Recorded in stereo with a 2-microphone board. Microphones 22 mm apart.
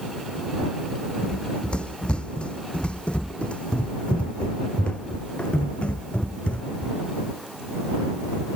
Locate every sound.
1.2 s running footsteps: 55° left (ahead or behind); by 7.0 s 70° left (ahead or behind)